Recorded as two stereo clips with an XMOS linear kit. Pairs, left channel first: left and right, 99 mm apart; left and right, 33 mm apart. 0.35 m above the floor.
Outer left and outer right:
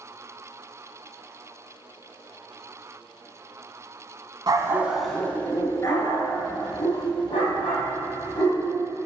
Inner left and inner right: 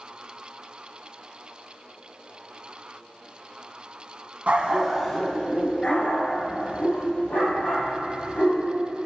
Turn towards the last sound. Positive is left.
turn(degrees=55)  # may be behind; listen again after turning